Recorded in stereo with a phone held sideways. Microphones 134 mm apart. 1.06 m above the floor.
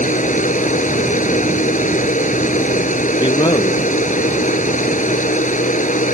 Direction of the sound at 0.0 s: 70° left (ahead or behind).